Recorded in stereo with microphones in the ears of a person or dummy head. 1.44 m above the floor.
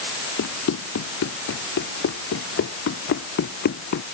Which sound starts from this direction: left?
Running footsteps, at 0.4 s.